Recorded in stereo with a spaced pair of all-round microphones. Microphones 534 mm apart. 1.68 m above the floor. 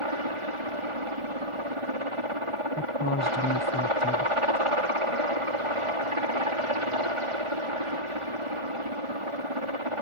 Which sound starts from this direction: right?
A helicopter, at 0.0 s.